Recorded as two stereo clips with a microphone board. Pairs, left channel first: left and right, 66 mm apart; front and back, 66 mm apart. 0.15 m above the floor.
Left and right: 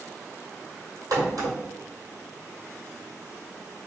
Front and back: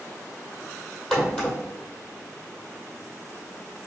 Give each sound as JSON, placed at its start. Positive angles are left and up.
{"t": 1.1, "sound": "a crack", "azimuth_deg": -80, "distance_m": 1.8}